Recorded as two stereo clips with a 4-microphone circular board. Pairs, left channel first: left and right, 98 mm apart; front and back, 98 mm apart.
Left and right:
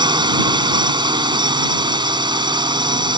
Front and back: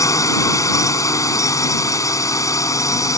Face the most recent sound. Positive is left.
turn(degrees=-55)